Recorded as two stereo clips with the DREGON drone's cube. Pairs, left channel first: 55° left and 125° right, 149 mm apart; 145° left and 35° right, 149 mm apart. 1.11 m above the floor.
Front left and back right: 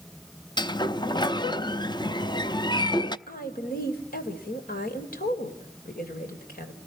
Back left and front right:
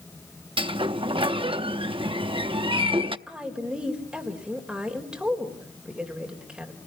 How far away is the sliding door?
About 0.7 m.